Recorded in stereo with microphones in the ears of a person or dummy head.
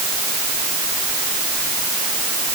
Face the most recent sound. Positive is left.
No sound to turn to.